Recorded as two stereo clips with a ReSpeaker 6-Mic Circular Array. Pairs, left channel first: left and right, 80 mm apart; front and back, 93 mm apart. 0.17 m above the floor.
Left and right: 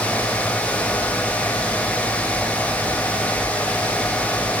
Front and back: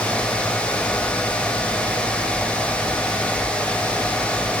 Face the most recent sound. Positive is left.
No sound to turn to.